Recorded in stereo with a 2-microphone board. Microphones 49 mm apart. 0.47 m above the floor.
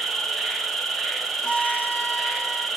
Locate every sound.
0.0 s an insect: 5° left (ahead or behind), 0.8 m
1.4 s a violin: 20° left (ahead or behind), 1.9 m